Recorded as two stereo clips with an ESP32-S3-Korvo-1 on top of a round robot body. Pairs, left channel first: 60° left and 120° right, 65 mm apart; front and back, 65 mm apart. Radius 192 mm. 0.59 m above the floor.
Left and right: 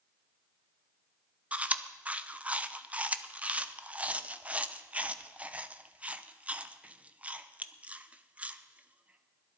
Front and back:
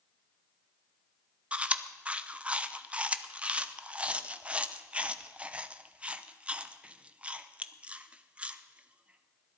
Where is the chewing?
145° right, 1.0 m.